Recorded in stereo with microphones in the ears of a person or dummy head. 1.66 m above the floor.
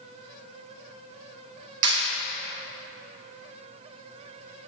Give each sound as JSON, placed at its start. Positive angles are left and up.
{"t": 1.8, "sound": "a clap", "side_deg": -85, "distance_m": 2.0}